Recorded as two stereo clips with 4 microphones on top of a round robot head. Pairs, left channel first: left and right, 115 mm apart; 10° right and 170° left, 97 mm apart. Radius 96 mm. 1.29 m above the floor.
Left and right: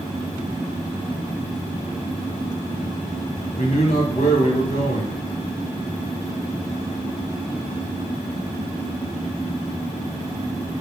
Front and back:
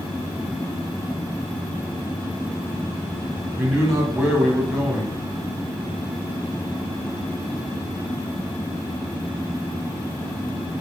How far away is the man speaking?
About 1.4 m.